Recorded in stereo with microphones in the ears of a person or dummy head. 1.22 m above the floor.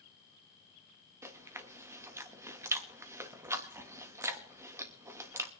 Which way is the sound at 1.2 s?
15° right (ahead or behind).